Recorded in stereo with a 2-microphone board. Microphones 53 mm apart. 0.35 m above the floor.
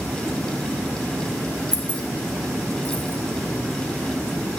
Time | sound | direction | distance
1.7 | keys jangling | 15° right (ahead or behind) | 0.6 m